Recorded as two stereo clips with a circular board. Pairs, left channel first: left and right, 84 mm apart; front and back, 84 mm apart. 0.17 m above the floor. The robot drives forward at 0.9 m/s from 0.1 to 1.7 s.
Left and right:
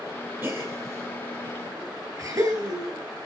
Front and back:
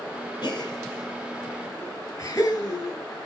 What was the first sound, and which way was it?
A gasp, 30° right.